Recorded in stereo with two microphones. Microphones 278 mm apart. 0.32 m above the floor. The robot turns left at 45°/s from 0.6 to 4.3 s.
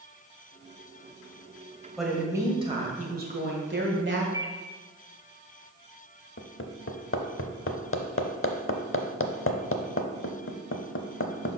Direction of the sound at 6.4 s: 50° left (ahead or behind).